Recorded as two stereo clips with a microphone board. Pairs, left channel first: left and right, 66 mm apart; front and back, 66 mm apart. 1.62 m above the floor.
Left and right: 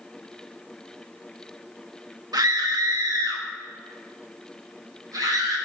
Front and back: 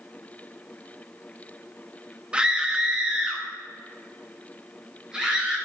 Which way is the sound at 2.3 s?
105° right.